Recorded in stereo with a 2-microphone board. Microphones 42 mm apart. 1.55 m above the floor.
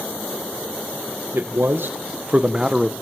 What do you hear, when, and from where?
1.3 s a man speaking: 75° right (ahead or behind), 1.2 m; by 2.9 s 5° right (ahead or behind), 1.0 m